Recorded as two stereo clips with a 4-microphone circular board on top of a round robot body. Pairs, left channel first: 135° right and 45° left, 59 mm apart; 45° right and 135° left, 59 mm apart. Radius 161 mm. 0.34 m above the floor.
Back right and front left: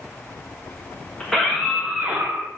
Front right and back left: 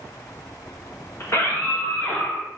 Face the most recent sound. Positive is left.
turn(degrees=30)